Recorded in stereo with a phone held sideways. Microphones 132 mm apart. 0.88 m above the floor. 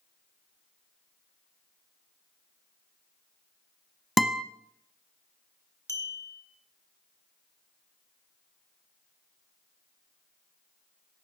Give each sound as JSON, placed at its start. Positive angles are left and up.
{"t": 4.2, "sound": "a guitar", "side_deg": 0, "distance_m": 0.9}
{"t": 5.9, "sound": "a clink", "side_deg": 20, "distance_m": 1.7}